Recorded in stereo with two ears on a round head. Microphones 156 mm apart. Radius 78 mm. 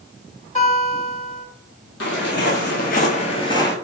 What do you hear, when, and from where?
0.6 s a guitar: 40° left (ahead or behind), 1.4 m
2.0 s footsteps: 70° left (ahead or behind), 1.0 m; by 3.7 s 15° left (ahead or behind), 0.6 m